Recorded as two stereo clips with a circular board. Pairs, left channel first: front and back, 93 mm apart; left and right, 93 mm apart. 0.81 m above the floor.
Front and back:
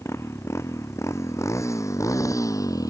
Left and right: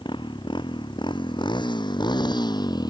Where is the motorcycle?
60° left; by 2.9 s 50° left.